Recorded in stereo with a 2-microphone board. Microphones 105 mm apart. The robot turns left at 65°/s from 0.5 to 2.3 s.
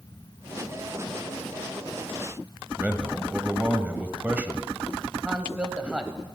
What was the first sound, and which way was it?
A man speaking, 15° right (ahead or behind).